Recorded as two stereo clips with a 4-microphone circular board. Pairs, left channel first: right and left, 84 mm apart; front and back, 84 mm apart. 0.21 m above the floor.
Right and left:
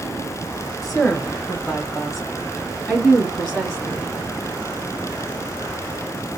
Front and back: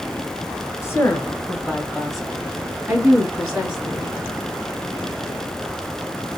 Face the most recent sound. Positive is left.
turn(degrees=175)